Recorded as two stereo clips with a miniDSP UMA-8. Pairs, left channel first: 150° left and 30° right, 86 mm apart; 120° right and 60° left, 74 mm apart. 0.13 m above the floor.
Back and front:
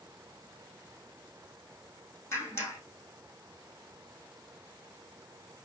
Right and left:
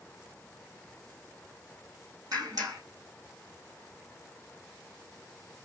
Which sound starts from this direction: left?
A clap, at 2.3 s.